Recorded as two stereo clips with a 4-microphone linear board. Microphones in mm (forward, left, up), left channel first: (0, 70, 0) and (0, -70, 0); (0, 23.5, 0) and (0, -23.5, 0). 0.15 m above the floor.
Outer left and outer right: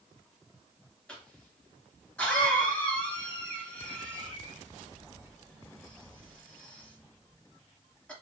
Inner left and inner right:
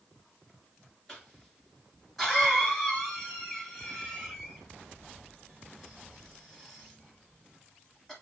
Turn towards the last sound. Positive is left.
turn(degrees=10)  # may be behind; listen again after turning